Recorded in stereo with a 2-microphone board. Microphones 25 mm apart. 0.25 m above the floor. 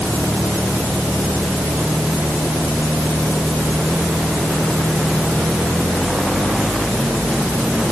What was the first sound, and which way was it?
Only background noise.